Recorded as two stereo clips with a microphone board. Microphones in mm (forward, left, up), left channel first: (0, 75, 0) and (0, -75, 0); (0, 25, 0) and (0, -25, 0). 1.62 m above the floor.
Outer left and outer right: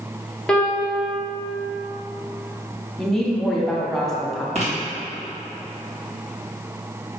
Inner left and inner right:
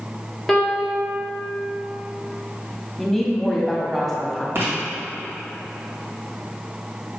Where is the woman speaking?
Centre (ahead or behind), 0.8 m.